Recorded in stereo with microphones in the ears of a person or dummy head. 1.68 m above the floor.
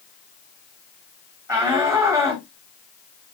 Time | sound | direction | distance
1.5 | a shout | 20° right (ahead or behind) | 1.4 m